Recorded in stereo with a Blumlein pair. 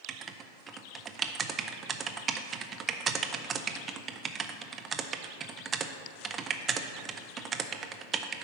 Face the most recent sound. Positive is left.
turn(degrees=-20)